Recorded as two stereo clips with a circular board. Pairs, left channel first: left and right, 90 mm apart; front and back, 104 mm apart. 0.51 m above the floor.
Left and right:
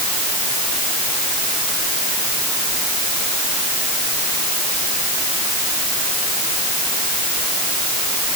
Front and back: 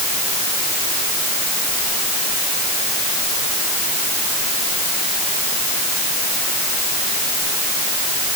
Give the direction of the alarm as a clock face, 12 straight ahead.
I don't hear an alarm.